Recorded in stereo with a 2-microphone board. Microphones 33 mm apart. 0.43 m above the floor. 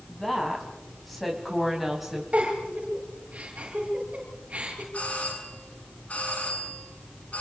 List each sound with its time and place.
0.1 s a woman speaking: 10° left (ahead or behind), 4 m; by 2.2 s 5° right (ahead or behind), 3 m
2.3 s a giggle: 45° right (ahead or behind), 9 m
4.9 s a doorbell: 50° left (ahead or behind), 7.5 m